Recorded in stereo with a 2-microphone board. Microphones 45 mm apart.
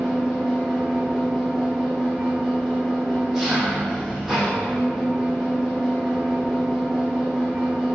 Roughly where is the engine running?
Centre.